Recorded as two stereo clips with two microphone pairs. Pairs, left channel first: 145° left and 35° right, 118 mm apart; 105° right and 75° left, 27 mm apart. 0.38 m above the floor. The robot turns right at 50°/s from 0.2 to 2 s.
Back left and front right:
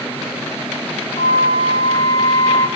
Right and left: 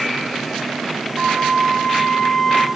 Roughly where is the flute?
Behind left.